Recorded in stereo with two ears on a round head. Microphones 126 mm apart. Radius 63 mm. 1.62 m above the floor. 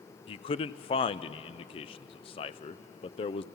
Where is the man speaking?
40° left (ahead or behind), 0.5 m.